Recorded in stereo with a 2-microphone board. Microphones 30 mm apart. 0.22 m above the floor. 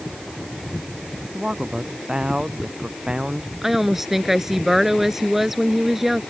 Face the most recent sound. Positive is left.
turn(degrees=-5)  # may be behind; listen again after turning